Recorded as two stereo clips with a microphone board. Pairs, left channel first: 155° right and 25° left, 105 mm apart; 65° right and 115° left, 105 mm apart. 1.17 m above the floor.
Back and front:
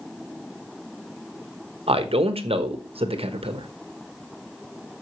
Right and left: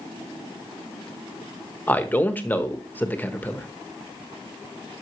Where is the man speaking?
5° left, 1.1 m.